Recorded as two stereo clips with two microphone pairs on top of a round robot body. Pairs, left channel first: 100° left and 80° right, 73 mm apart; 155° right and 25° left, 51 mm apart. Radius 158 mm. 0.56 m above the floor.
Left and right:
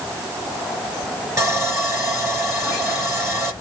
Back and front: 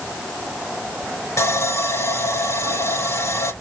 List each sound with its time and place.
1.4 s sawing: 135° right, 5 m